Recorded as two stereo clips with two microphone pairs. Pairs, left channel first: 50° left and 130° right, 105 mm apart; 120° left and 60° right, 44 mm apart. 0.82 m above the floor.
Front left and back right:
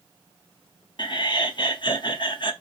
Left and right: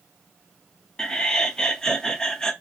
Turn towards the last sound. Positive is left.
turn(degrees=50)